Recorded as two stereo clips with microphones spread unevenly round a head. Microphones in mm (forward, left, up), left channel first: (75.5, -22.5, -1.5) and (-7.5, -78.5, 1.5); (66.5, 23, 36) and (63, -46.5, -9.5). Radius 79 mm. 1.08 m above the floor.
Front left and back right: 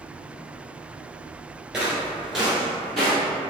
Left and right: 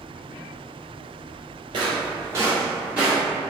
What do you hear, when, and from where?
1.7 s footsteps: 75° right, 1.1 m; by 3.2 s 120° left, 1.2 m